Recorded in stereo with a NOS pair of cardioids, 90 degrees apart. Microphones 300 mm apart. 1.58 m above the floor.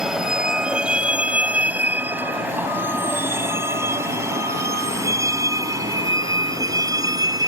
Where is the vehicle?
Straight ahead; by 7.5 s 15° right.